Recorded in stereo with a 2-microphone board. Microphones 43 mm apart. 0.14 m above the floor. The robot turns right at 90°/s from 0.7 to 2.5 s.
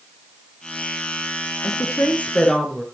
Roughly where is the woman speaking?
Left.